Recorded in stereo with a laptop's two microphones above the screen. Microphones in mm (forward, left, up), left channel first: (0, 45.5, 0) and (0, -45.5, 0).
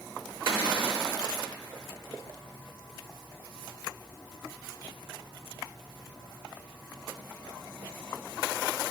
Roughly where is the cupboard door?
Right.